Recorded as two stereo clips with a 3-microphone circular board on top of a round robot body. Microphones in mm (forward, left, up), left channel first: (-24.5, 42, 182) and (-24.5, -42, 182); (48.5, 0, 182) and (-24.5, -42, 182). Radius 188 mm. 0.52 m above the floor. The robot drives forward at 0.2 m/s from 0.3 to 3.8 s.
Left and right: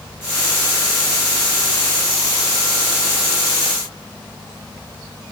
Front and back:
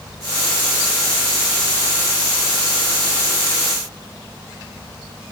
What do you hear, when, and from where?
Only background noise.